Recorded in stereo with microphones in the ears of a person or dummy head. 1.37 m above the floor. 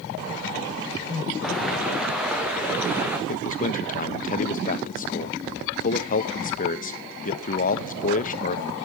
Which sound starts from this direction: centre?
Footsteps, at 1.4 s.